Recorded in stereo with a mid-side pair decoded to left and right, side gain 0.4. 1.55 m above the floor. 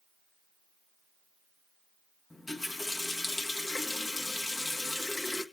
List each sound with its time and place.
2.3 s a running tap: 30° left, 1.7 m